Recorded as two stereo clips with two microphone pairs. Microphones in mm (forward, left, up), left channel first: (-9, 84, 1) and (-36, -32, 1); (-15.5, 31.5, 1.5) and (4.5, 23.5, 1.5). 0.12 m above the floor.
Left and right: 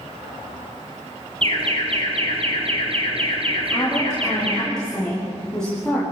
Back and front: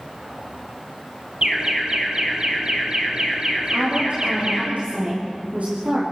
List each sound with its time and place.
1.4 s an alarm: 70° right, 4 m
3.7 s a woman speaking: 5° right, 9 m